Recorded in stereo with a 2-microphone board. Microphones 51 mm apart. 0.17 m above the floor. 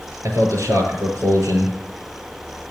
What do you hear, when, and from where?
0.2 s a man speaking: 75° right (ahead or behind), 6 m